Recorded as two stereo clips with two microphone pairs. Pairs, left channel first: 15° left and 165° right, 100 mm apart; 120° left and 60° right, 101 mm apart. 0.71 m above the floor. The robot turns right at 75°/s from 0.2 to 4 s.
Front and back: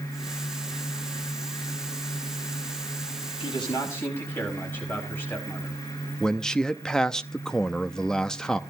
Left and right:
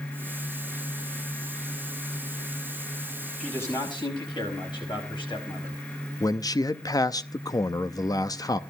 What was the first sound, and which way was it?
A man speaking, 40° left.